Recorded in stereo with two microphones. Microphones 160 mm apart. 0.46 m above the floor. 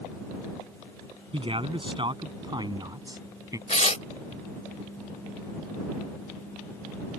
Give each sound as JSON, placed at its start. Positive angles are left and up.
{"t": 1.3, "sound": "a man speaking", "side_deg": -35}
{"t": 3.7, "sound": "tearing paper", "side_deg": 45}